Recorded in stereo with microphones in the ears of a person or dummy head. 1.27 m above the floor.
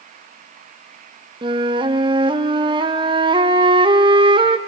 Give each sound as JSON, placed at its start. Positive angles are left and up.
{"t": 1.4, "sound": "a flute", "side_deg": -20, "distance_m": 0.5}